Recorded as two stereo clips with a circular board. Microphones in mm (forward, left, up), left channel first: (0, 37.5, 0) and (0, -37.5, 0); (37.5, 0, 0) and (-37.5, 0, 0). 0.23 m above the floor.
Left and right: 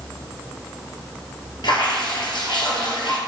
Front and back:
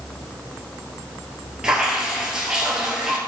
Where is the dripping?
100° left, 1.7 m.